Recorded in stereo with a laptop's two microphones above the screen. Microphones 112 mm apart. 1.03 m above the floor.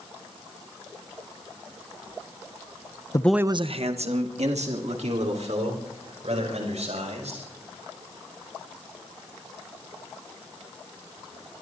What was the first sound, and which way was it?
A man speaking, 30° left (ahead or behind).